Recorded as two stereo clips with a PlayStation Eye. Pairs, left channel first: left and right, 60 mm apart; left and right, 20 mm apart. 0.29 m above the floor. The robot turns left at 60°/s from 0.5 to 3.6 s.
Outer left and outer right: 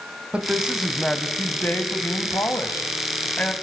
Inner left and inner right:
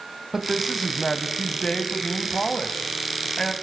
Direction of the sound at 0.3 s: 155° right.